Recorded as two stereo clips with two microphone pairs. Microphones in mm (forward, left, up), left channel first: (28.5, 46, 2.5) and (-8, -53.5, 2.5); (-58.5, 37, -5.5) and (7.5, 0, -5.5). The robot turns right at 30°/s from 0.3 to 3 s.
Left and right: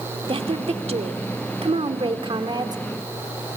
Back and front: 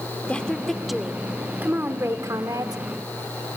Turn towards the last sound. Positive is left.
turn(degrees=-55)